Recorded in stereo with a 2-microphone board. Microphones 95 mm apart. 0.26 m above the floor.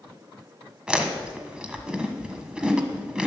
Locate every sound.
0.9 s chewing: 10° right (ahead or behind), 1.3 m